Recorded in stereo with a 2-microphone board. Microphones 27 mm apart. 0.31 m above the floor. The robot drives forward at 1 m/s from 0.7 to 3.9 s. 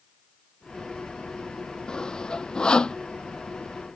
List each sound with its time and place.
1.9 s sawing: 25° left (ahead or behind)